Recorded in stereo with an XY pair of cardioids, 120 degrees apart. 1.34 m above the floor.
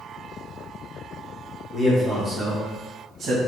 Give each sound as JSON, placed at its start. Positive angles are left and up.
{"t": 1.7, "sound": "a man speaking", "azimuth_deg": 5, "distance_m": 1.8}